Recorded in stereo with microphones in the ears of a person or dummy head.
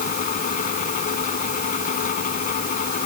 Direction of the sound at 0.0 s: 50° left (ahead or behind).